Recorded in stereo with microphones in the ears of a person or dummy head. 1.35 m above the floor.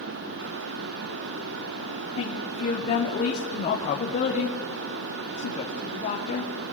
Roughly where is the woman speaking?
Left.